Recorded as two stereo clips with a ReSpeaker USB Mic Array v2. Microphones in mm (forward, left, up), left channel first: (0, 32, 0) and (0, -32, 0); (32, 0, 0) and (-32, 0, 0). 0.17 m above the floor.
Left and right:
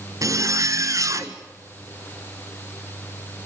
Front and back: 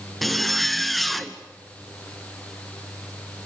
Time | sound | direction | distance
0.2 | a zipper | 90° right | 1.2 m